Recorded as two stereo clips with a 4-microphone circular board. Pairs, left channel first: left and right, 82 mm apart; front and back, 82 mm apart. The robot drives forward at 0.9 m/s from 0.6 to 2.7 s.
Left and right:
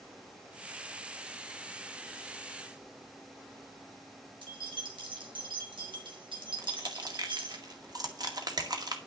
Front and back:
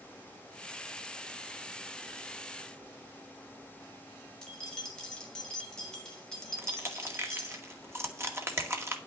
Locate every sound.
4.4 s keys jangling: 80° right, 3.5 m
6.6 s crushing: 125° right, 1.9 m